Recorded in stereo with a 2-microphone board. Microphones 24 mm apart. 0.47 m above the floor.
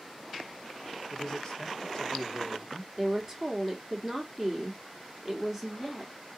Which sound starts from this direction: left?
A man speaking, at 1.1 s.